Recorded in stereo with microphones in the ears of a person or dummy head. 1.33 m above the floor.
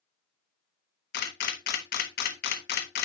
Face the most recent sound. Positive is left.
turn(degrees=55)  # may be behind; listen again after turning